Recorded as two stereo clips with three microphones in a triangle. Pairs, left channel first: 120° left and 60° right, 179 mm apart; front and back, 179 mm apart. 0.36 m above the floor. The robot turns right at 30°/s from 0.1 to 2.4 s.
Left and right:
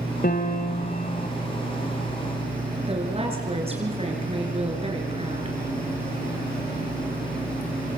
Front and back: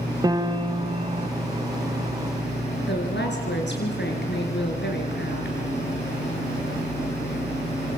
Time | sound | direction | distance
0.2 | a piano | 115° left | 1.6 m
2.9 | a woman speaking | 5° right | 6 m